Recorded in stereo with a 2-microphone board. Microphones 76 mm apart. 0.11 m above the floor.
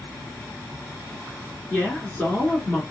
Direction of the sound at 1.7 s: 20° left (ahead or behind).